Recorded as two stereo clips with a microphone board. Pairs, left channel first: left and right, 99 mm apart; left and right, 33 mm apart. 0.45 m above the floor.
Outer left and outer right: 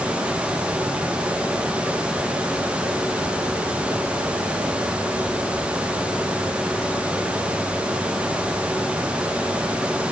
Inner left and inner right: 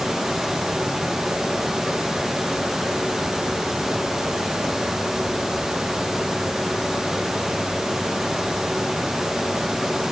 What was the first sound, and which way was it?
Only background noise.